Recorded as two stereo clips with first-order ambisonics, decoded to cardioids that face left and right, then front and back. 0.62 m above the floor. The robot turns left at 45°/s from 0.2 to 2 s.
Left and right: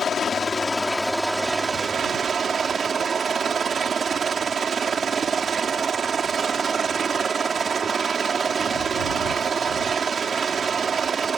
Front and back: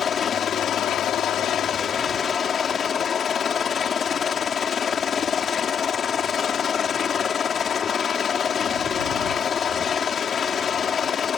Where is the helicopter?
40° left; by 11.4 s 40° right.